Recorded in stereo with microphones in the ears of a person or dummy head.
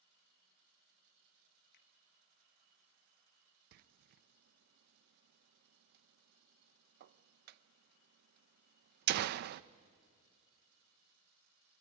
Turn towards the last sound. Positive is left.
turn(degrees=-55)  # may be behind; listen again after turning